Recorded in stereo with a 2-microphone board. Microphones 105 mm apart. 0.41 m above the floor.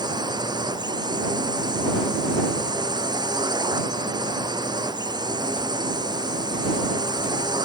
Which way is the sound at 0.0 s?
45° right (ahead or behind).